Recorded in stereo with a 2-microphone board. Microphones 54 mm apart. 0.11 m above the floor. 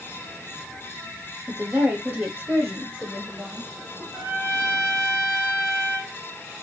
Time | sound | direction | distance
1.5 | a woman speaking | 35° right (ahead or behind) | 3.5 m
4.1 | a trumpet | 35° right (ahead or behind) | 7 m